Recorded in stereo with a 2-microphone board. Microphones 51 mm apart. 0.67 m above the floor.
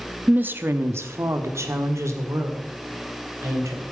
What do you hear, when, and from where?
0.3 s a woman speaking: 30° right (ahead or behind), 0.8 m; by 3.8 s 80° right, 3 m